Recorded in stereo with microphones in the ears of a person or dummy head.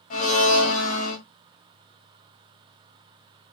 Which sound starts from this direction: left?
A blender, at 0.1 s.